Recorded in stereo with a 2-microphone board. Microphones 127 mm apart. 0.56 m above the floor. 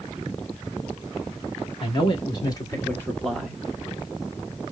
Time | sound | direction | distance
1.8 | a man speaking | 45° left (ahead or behind) | 1.5 m